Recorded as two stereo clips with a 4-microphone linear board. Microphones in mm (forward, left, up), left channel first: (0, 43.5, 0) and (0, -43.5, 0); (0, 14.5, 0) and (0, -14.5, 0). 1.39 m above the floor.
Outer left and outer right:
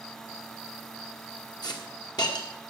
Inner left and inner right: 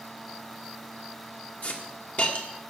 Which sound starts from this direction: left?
A hiss, at 1.6 s.